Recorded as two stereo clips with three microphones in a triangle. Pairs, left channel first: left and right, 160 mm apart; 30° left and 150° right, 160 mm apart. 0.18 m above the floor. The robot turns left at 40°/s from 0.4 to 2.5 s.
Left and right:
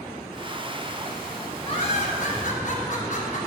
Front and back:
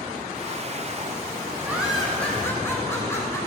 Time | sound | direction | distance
1.6 | laughter | 135° left | 2 m